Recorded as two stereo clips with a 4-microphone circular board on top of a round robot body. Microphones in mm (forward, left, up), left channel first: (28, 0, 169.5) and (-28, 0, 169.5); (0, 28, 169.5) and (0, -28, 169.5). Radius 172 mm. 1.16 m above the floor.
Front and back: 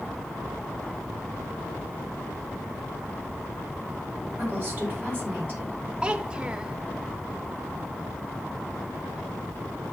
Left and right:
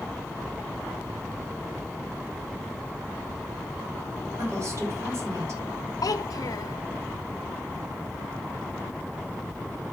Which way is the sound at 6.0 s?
105° left.